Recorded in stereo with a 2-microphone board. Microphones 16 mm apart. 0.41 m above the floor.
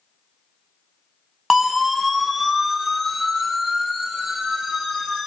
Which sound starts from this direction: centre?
A siren, at 1.5 s.